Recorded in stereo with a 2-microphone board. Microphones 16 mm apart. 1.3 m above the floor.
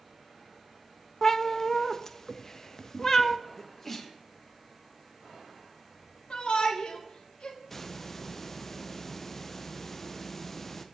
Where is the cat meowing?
25° left (ahead or behind), 0.5 m.